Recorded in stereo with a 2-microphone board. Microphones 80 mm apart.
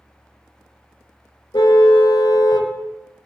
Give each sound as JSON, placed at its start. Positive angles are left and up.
{"t": 1.5, "sound": "a car horn", "side_deg": 75, "distance_m": 2.5}